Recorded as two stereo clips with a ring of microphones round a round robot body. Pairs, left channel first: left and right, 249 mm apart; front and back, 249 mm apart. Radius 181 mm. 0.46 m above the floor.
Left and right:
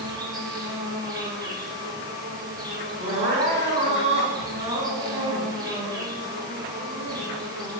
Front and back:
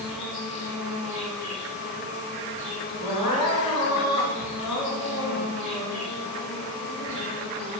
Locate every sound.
0.0 s an insect: 15° right, 5.5 m
3.0 s crying: 25° right, 4 m